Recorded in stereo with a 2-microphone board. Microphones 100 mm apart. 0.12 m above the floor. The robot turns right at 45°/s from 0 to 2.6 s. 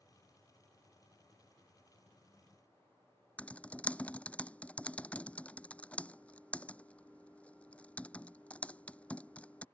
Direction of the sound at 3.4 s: 15° left (ahead or behind).